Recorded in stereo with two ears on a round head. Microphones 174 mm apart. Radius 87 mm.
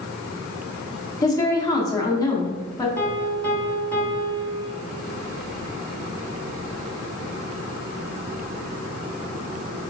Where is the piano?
10° left (ahead or behind), 1.3 m.